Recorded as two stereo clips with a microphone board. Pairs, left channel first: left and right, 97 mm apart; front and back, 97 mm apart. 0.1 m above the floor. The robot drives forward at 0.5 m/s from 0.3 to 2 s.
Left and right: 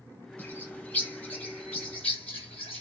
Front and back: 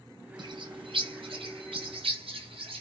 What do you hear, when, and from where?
0.4 s a bird: 160° left, 0.9 m; by 2.8 s 170° left, 1.6 m